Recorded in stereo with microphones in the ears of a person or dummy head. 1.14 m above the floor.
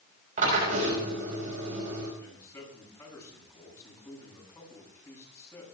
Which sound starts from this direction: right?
A drill, at 0.4 s.